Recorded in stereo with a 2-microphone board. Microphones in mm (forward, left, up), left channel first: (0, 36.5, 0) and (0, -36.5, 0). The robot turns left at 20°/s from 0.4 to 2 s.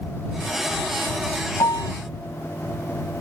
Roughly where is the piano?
Left.